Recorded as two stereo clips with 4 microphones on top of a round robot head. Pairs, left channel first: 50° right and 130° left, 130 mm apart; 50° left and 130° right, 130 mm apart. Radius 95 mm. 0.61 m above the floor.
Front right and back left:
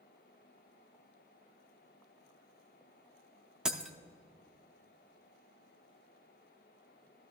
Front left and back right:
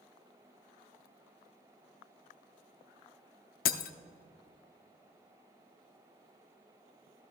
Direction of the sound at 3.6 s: 45° left.